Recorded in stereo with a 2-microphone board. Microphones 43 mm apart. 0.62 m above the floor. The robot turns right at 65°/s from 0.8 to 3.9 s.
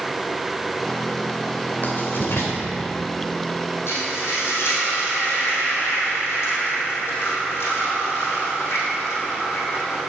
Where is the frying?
80° left, 4 m; by 10.0 s 75° left (ahead or behind), 4 m.